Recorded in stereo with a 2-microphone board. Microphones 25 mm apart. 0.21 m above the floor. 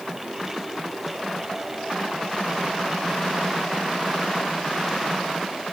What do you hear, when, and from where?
Only background noise.